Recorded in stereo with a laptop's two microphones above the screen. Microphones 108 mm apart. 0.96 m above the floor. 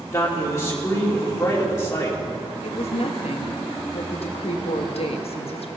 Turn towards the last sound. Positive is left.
turn(degrees=65)  # may be behind; listen again after turning